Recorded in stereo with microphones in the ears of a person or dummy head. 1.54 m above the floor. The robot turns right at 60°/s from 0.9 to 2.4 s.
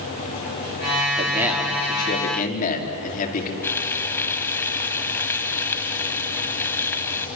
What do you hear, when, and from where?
1.2 s a man speaking: 25° right, 4.5 m; by 3.5 s 50° left, 4.5 m
3.6 s frying: 10° left (ahead or behind), 1.5 m